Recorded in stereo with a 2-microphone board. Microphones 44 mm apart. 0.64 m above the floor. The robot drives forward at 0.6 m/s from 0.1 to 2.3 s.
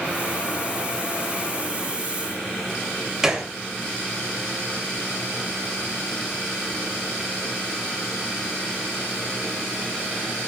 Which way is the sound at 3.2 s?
10° right (ahead or behind).